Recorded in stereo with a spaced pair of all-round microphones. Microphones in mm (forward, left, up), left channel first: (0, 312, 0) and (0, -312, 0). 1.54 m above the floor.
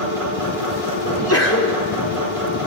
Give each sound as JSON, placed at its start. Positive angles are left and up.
{"t": 0.0, "sound": "a machine running", "side_deg": -60, "distance_m": 7.5}
{"t": 1.1, "sound": "a sneeze", "side_deg": 20, "distance_m": 4.0}